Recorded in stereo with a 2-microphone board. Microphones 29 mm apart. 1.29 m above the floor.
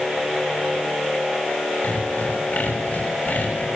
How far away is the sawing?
About 7 m.